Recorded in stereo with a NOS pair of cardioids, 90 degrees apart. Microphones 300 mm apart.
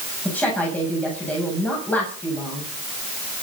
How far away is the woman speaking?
About 8 m.